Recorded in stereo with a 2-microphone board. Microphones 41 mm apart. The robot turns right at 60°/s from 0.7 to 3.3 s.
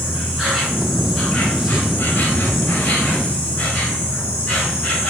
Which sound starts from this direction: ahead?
An insect, at 0.0 s.